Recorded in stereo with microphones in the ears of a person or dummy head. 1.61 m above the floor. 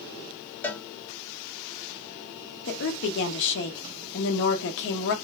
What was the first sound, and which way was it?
A cowbell, 10° left (ahead or behind).